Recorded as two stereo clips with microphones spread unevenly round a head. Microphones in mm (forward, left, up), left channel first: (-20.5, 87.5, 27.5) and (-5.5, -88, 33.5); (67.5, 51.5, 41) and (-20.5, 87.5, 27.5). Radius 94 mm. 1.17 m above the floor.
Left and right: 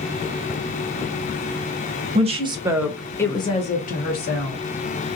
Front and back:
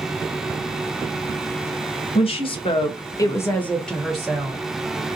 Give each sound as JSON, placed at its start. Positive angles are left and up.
{"t": 2.1, "sound": "a woman speaking", "azimuth_deg": -35, "distance_m": 1.1}